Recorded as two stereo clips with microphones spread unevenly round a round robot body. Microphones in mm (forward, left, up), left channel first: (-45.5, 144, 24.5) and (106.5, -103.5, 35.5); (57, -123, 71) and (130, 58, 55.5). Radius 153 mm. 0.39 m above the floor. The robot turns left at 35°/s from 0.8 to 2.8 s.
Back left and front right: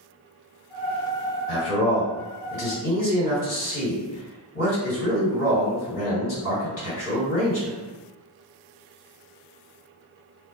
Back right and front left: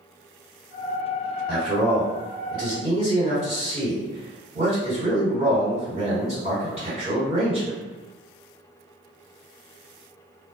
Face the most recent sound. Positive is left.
turn(degrees=120)